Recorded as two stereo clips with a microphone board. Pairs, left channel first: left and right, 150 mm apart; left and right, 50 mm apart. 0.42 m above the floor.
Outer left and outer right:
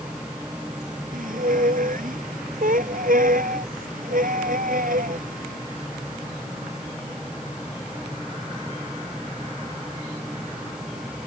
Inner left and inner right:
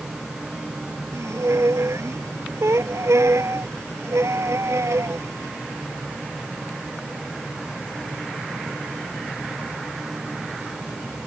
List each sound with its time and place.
1.1 s a squeak: 70° right (ahead or behind)